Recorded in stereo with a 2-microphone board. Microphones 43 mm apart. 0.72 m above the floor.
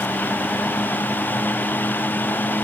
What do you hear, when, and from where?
Only background noise.